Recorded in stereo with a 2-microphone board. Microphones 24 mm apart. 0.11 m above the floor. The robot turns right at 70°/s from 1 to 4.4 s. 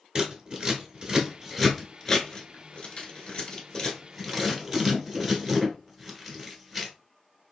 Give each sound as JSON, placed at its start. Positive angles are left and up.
{"t": 0.1, "sound": "scissors", "side_deg": -35, "distance_m": 1.3}